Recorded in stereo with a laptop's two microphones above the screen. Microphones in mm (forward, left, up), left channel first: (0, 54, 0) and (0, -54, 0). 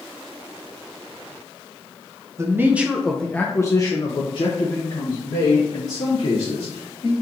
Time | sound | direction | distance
2.4 | a man speaking | 25° right (ahead or behind) | 0.8 m